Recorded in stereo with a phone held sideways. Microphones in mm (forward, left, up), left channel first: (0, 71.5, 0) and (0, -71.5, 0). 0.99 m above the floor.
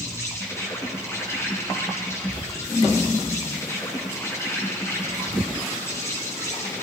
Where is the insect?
20° left (ahead or behind), 7 m.